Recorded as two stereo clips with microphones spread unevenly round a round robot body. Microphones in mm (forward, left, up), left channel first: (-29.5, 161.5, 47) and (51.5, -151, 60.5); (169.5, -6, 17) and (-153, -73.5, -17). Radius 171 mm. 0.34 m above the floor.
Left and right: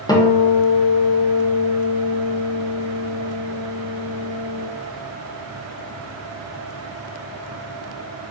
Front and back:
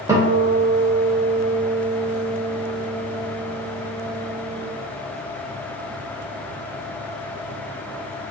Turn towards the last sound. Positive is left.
turn(degrees=150)